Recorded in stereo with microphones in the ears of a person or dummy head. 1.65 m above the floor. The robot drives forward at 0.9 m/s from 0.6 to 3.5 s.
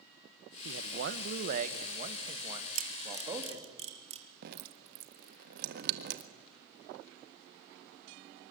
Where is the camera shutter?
50° right (ahead or behind), 1.6 m; by 4.3 s 35° right (ahead or behind), 2 m.